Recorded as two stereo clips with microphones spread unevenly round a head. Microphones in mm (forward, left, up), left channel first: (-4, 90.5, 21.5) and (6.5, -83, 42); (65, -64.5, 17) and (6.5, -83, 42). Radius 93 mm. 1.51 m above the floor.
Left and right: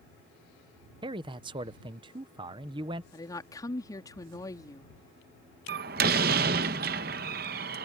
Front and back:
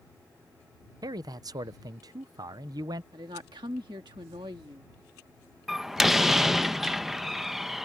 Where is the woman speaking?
165° left.